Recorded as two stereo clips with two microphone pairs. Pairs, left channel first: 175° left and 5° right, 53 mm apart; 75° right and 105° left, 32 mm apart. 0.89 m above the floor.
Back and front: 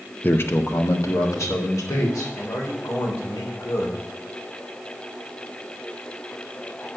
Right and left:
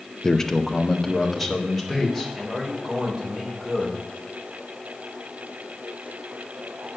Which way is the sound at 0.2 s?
140° right.